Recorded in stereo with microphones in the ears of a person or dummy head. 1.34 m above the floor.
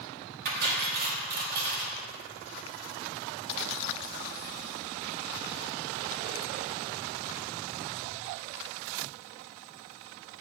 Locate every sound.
0.5 s cutlery clinking: 50° right (ahead or behind), 1.1 m